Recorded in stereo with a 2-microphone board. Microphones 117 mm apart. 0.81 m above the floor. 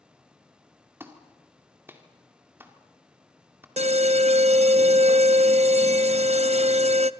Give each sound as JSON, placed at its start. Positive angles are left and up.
{"t": 1.0, "sound": "a clap", "side_deg": -20, "distance_m": 2.0}
{"t": 3.8, "sound": "an alarm", "side_deg": -70, "distance_m": 0.5}